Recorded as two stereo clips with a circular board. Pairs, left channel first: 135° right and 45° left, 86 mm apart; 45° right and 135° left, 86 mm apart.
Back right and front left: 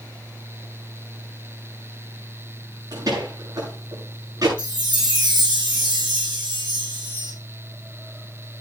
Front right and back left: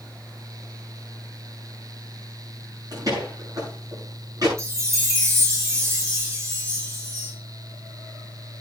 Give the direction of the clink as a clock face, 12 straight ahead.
I don't hear a clink.